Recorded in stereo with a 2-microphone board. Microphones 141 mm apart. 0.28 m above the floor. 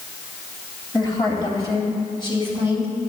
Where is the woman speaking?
30° left (ahead or behind), 1.9 m; by 2.9 s 35° left (ahead or behind), 3 m.